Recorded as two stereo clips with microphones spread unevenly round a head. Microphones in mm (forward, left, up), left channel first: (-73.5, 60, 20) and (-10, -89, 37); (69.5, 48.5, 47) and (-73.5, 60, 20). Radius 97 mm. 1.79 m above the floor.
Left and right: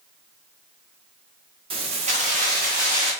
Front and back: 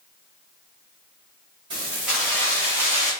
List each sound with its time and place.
1.7 s keys jangling: 110° right, 1.1 m; by 3.1 s 25° right, 1.2 m